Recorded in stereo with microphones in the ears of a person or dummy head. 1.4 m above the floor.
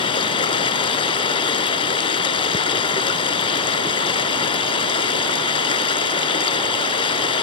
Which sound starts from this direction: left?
Running water, at 0.0 s.